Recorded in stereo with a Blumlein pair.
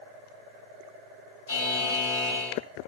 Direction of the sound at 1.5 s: 60° left.